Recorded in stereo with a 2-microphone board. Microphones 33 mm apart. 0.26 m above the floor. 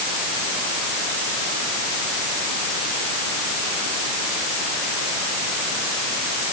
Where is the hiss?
I don't hear a hiss.